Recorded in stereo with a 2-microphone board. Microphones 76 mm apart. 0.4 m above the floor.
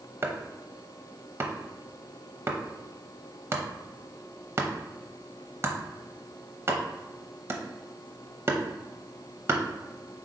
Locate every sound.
0.2 s chopping: 35° right (ahead or behind), 0.7 m